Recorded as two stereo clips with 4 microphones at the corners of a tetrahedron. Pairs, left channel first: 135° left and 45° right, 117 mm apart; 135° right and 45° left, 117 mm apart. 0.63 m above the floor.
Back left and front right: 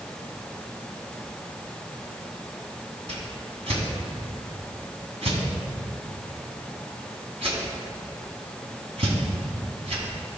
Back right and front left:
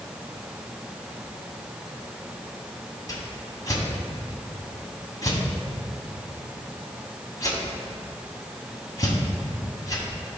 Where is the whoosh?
75° right, 1.4 m.